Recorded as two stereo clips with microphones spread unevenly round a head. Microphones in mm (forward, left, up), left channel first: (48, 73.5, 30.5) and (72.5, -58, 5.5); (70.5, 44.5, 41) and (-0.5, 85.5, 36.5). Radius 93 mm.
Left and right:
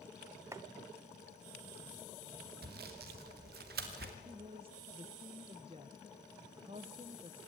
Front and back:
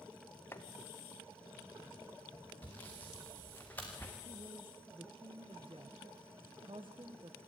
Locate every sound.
0.5 s chopping: 10° right, 0.9 m
2.6 s sawing: 110° right, 1.8 m
4.2 s a woman speaking: 145° right, 1.0 m